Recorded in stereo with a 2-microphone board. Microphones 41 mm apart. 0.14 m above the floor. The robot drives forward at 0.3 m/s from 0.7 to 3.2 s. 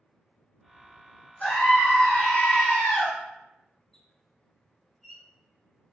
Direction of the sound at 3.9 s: 5° left (ahead or behind).